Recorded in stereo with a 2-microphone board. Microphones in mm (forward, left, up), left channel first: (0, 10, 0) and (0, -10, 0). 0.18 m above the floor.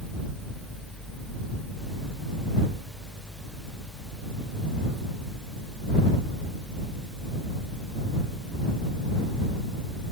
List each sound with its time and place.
Only background noise.